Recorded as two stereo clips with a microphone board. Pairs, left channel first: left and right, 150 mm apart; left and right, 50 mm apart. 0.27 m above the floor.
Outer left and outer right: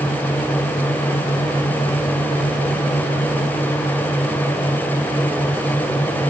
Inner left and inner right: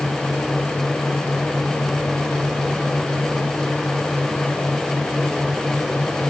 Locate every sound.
Only background noise.